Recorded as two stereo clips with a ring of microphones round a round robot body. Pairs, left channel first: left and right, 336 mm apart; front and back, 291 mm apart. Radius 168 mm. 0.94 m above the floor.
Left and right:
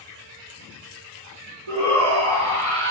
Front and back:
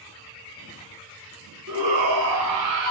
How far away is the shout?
About 7.5 m.